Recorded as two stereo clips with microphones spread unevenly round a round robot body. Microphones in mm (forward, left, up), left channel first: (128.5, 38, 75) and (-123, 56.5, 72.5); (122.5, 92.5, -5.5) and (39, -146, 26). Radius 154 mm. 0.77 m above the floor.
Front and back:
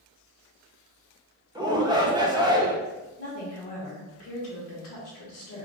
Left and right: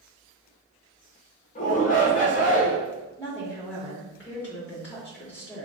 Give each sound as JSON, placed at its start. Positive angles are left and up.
{"t": 1.6, "sound": "a shout", "azimuth_deg": 110, "distance_m": 0.9}
{"t": 3.2, "sound": "a woman speaking", "azimuth_deg": -10, "distance_m": 1.1}